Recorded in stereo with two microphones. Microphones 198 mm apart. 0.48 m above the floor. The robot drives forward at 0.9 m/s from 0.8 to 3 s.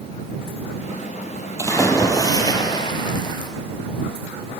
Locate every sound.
1.6 s a splash: 15° left (ahead or behind), 3.5 m; by 3.5 s 25° left (ahead or behind), 2 m